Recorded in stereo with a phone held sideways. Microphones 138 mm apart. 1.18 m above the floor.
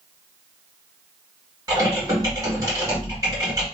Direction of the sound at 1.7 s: 25° right (ahead or behind).